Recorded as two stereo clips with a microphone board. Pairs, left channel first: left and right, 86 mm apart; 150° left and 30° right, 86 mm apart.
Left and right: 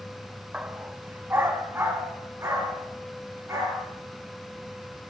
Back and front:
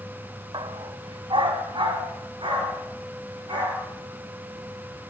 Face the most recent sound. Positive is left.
turn(degrees=-30)